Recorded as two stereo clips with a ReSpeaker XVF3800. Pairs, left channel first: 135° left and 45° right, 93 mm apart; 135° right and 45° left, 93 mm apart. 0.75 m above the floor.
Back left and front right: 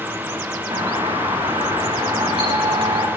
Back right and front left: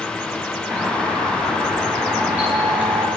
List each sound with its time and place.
0.7 s a doorbell: 30° right, 7.5 m